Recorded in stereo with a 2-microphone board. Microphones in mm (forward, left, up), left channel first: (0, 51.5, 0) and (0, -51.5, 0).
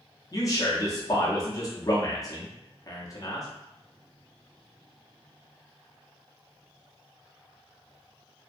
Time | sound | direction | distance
0.3 | a man speaking | 35° left (ahead or behind) | 0.8 m